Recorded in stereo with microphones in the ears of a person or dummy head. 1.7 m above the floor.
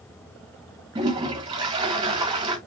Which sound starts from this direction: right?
A toilet flushing, at 0.9 s.